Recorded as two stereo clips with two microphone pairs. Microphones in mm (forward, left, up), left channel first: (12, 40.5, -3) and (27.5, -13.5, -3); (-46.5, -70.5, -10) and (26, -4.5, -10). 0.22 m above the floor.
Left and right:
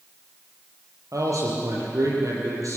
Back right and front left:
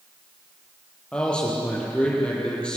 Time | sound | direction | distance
1.1 | a man speaking | 60° right | 7 m